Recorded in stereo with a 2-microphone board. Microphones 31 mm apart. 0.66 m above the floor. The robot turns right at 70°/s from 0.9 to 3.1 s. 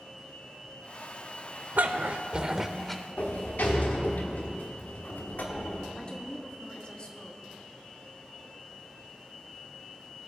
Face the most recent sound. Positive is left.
turn(degrees=30)  # may be behind; listen again after turning